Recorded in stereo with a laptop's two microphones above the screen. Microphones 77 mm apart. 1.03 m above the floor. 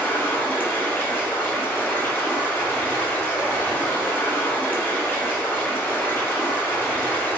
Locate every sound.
0.0 s running water: 25° left (ahead or behind), 0.8 m